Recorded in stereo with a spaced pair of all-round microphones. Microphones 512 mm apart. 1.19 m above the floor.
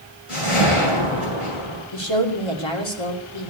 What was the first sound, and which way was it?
A whoosh, 85° left.